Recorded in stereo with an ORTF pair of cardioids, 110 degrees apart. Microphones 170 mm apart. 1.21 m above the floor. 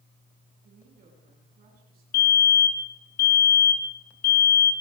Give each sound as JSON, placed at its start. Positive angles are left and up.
{"t": 0.6, "sound": "a woman speaking", "azimuth_deg": -60, "distance_m": 9.5}
{"t": 2.1, "sound": "a fire alarm", "azimuth_deg": 65, "distance_m": 3.0}